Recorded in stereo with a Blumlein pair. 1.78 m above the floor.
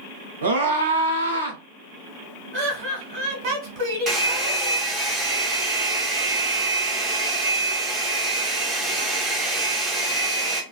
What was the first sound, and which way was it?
A scream, 65° right.